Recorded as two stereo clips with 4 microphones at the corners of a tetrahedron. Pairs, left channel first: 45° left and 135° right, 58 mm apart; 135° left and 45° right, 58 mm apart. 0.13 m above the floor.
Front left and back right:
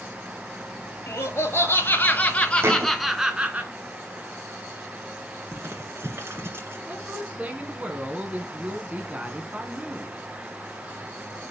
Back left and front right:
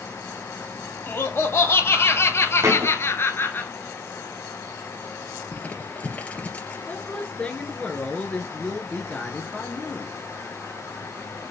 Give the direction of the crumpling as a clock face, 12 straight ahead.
5 o'clock.